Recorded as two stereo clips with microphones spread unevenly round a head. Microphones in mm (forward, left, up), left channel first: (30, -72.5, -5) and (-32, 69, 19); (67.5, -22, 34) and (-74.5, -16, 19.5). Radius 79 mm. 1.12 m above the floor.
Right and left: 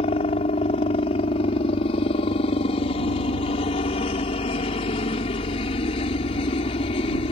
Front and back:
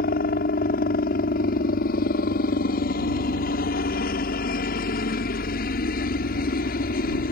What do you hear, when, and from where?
0.0 s a helicopter: 15° right